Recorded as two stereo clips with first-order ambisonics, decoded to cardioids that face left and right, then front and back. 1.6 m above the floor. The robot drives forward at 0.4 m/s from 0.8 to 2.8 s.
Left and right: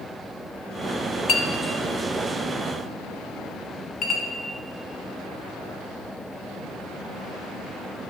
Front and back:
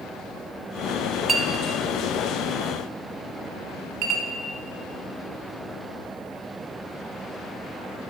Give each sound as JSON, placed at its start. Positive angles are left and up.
{"t": 1.3, "sound": "a clink", "azimuth_deg": 115, "distance_m": 0.8}